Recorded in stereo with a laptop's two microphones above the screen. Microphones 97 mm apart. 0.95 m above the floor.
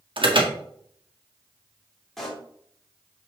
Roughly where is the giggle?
I don't hear a giggle.